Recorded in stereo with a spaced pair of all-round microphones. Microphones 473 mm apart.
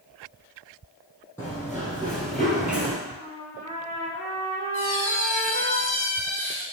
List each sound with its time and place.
1.4 s running footsteps: 5° left (ahead or behind), 2 m; by 3.0 s 5° right (ahead or behind), 1.1 m
3.1 s a trumpet: 5° left (ahead or behind), 1.9 m
4.7 s a squeak: 40° left (ahead or behind), 1.7 m